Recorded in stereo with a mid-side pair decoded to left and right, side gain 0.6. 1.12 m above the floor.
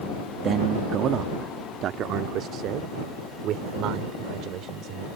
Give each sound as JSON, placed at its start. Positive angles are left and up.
{"t": 0.4, "sound": "a man speaking", "azimuth_deg": -50}